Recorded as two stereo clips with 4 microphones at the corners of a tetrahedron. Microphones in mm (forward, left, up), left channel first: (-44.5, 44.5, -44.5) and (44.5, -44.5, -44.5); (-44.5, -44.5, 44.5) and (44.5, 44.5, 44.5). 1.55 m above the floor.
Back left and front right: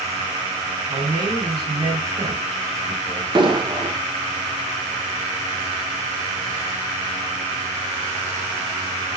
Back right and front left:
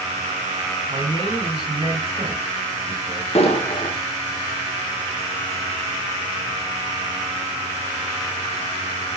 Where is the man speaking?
5° right, 4 m.